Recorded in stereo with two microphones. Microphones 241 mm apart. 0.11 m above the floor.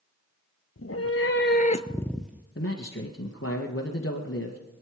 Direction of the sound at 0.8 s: 65° left (ahead or behind).